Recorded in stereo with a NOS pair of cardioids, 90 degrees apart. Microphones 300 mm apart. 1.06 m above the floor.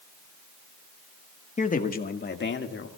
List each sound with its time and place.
1.6 s a man speaking: 20° left, 1.6 m; by 2.9 s 40° left, 2.5 m